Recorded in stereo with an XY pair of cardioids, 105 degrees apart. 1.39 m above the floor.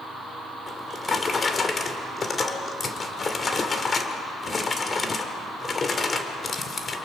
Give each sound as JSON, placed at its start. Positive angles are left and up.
{"t": 0.7, "sound": "a drawer", "azimuth_deg": 35, "distance_m": 2.5}